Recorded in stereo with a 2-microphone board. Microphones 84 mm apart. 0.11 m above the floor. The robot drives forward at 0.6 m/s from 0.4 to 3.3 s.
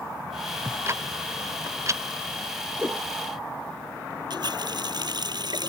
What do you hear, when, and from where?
0.7 s ticking: 35° right (ahead or behind); by 2.0 s 40° right (ahead or behind)
2.8 s a whoosh: 25° right (ahead or behind)
4.3 s a running tap: 60° right (ahead or behind)